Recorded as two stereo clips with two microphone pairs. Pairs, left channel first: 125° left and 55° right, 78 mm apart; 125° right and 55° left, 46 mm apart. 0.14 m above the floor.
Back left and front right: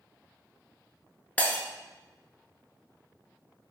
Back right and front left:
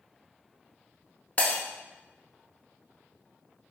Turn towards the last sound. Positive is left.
turn(degrees=-170)